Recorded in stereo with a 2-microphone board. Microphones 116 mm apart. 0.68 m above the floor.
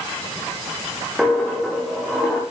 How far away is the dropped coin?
About 6.5 m.